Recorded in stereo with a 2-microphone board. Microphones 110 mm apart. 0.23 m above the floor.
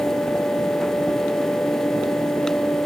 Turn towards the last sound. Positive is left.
No sound to turn to.